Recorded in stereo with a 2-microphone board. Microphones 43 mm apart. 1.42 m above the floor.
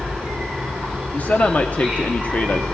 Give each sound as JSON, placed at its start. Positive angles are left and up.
{"t": 0.0, "sound": "an insect", "side_deg": 10, "distance_m": 7.0}
{"t": 1.1, "sound": "a man speaking", "side_deg": 40, "distance_m": 1.1}